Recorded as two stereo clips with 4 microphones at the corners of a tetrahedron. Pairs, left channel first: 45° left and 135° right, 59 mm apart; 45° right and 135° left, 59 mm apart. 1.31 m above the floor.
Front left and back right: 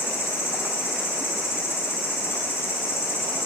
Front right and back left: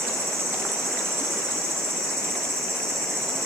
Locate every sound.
0.0 s an insect: 95° left, 5 m